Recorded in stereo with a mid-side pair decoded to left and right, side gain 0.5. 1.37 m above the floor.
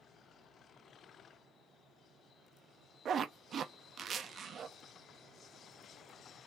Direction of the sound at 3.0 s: 50° right.